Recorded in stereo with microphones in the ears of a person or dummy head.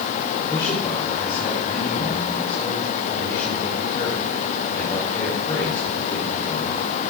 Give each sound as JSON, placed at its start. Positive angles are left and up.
{"t": 0.5, "sound": "a man speaking", "side_deg": 20, "distance_m": 4.5}